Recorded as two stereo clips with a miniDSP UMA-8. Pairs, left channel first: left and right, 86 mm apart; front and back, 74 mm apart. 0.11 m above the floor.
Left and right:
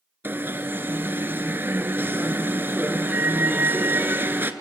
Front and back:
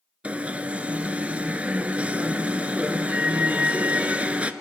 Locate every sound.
0.2 s an alarm: 125° right, 0.8 m